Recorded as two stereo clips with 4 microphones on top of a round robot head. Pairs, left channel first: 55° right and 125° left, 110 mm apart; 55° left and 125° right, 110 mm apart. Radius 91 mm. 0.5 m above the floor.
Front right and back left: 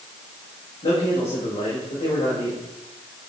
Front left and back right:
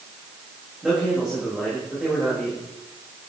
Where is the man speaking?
40° right, 3 m.